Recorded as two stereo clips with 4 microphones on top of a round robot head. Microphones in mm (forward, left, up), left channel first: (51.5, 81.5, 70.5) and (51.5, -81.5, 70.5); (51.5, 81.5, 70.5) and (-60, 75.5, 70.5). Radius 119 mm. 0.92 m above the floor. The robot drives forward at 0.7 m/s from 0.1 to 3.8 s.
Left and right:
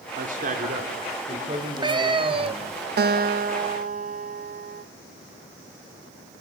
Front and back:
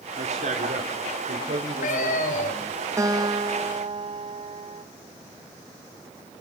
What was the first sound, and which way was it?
A man speaking, 135° right.